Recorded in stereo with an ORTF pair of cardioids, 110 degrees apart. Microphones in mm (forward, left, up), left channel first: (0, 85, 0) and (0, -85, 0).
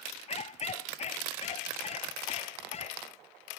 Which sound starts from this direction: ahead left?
A dog barking, at 0.3 s.